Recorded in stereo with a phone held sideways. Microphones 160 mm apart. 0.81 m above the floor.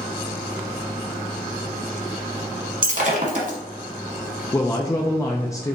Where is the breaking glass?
55° right (ahead or behind), 1.2 m.